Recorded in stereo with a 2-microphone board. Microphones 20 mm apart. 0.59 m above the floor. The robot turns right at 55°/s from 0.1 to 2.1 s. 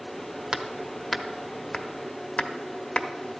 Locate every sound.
0.5 s hammering: 35° right (ahead or behind), 0.7 m; by 3.1 s 50° left (ahead or behind), 0.7 m